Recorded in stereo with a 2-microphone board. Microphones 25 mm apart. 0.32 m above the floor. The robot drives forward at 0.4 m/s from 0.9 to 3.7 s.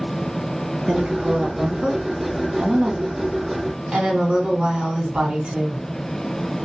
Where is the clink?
I don't hear a clink.